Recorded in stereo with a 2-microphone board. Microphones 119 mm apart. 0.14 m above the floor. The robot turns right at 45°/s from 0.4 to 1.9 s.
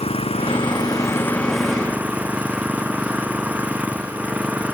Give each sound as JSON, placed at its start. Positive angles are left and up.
{"t": 0.0, "sound": "an engine running", "azimuth_deg": 125}